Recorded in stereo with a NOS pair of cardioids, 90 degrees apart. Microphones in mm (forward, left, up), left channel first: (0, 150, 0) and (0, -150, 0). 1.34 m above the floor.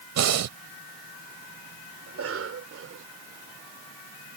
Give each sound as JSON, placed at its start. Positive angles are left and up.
{"t": 0.2, "sound": "breathing", "azimuth_deg": -65}
{"t": 2.1, "sound": "a cough", "azimuth_deg": -50}